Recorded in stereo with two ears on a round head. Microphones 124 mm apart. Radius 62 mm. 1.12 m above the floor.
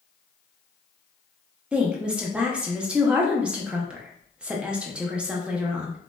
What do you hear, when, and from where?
1.7 s a woman speaking: 5° right (ahead or behind), 0.6 m